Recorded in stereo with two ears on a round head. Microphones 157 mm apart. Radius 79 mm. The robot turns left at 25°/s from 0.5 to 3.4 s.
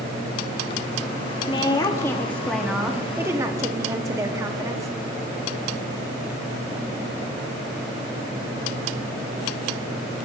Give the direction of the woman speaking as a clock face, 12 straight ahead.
11 o'clock.